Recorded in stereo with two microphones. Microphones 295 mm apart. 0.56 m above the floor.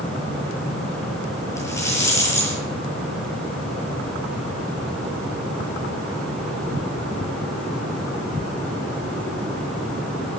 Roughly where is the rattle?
Centre.